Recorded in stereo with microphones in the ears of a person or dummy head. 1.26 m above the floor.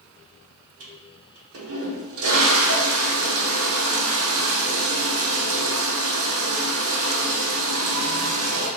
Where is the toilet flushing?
65° right (ahead or behind), 0.9 m.